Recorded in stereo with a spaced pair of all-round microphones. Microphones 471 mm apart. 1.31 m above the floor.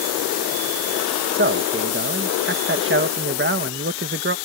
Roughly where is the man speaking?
Right.